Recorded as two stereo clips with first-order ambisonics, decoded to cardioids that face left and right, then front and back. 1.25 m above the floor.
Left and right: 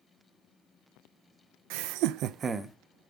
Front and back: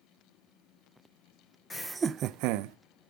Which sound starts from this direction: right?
Laughter, at 1.7 s.